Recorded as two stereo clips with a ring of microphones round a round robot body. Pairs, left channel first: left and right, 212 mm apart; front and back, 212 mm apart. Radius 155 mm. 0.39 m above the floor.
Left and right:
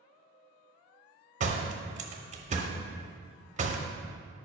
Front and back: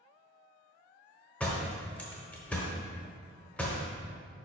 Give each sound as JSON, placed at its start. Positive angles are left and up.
{"t": 1.4, "sound": "a door slam", "azimuth_deg": -80, "distance_m": 0.8}